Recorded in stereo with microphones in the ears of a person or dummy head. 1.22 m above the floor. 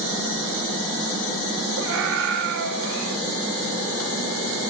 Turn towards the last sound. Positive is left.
turn(degrees=-70)  # may be behind; listen again after turning